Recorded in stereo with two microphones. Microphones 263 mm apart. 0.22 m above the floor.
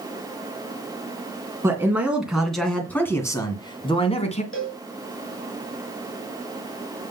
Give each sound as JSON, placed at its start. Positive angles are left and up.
{"t": 1.6, "sound": "a man speaking", "side_deg": -10, "distance_m": 2.5}
{"t": 4.5, "sound": "a cowbell", "side_deg": 55, "distance_m": 3.0}